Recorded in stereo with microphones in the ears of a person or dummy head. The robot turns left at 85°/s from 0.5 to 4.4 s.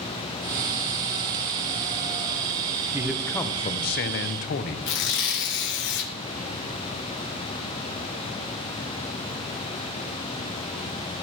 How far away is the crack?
No crack in this recording.